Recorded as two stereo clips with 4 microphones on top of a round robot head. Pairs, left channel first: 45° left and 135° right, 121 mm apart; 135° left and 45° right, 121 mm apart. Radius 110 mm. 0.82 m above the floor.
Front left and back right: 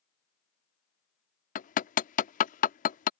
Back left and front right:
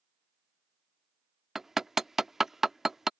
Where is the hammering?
40° left.